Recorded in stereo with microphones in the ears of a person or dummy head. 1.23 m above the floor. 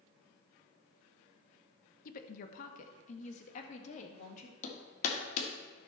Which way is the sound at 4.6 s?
45° left (ahead or behind).